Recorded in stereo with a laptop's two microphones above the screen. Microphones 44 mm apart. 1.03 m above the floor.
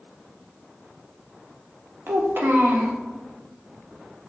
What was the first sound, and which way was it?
A child speaking, 55° right (ahead or behind).